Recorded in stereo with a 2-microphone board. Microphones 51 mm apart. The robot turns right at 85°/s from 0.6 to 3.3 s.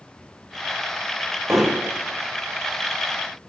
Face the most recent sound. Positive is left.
turn(degrees=-30)